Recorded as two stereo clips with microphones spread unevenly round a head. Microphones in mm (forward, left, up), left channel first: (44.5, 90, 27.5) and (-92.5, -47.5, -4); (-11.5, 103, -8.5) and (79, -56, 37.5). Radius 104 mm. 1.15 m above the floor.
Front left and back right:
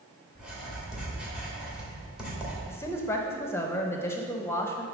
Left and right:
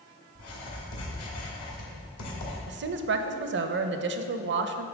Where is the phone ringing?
No phone ringing in this recording.